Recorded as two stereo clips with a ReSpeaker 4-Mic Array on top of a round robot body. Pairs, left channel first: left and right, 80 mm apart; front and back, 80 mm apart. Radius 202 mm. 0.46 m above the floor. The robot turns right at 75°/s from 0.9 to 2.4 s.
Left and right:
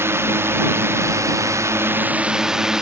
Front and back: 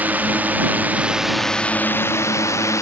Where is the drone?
125° right; by 2.8 s 10° right.